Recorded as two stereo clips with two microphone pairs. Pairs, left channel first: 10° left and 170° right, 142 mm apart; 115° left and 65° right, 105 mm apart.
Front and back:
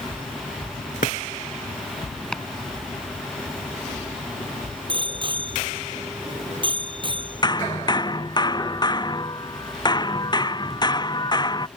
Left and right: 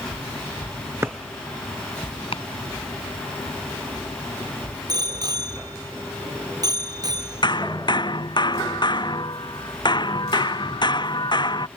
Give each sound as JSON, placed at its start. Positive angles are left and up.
{"t": 1.0, "sound": "a drawer", "azimuth_deg": 0}
{"t": 2.3, "sound": "chopping", "azimuth_deg": 95}
{"t": 4.9, "sound": "a bicycle bell", "azimuth_deg": -115}
{"t": 7.4, "sound": "hammering", "azimuth_deg": 70}